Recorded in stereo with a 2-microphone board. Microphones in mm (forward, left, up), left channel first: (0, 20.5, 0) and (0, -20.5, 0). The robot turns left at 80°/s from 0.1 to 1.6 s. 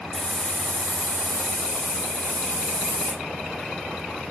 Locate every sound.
0.1 s a hiss: 170° left, 0.8 m; by 3.1 s 55° left, 0.8 m